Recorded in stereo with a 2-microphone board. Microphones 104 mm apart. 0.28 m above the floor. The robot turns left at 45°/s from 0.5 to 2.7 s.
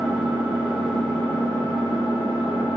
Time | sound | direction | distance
0.0 | an engine running | 170° right | 1.9 m